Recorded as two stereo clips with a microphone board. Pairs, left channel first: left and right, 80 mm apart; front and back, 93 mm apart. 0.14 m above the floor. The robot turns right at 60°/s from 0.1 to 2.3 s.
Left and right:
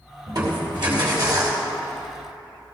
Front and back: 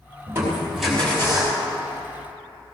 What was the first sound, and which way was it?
Crushing, 120° right.